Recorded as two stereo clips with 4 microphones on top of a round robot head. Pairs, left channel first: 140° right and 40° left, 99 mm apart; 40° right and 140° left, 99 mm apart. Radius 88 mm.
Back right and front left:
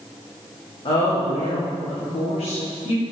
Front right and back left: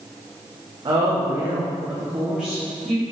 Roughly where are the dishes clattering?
I don't hear dishes clattering.